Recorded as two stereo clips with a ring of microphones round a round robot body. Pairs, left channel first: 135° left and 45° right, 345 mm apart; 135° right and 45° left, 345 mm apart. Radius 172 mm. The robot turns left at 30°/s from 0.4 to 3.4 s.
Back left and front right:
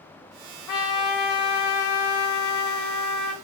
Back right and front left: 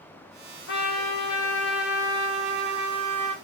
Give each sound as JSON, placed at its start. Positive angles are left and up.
{"t": 0.7, "sound": "a trumpet", "azimuth_deg": 170, "distance_m": 0.7}